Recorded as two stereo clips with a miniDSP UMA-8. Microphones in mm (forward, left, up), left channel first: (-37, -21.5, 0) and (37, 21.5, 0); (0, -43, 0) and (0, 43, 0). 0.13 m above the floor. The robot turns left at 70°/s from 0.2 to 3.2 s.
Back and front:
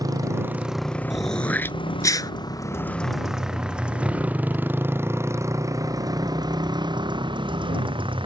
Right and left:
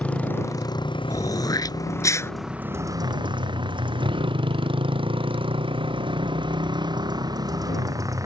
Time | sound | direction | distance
0.0 | a motorcycle | 15° right | ?
1.1 | throat clearing | 55° right | ?